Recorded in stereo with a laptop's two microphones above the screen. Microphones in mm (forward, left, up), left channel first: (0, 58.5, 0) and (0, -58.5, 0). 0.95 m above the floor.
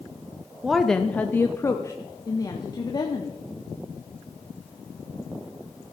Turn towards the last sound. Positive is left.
turn(degrees=35)  # may be behind; listen again after turning